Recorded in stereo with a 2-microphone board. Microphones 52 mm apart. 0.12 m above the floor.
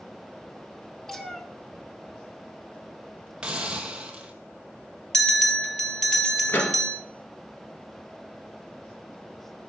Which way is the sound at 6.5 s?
45° left (ahead or behind).